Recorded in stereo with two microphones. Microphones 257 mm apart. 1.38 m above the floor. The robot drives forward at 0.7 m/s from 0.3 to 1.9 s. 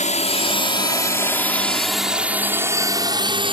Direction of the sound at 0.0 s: 30° left (ahead or behind).